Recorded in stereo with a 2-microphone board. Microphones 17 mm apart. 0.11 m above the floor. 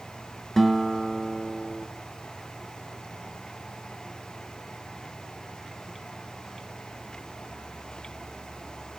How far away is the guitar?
About 1.2 m.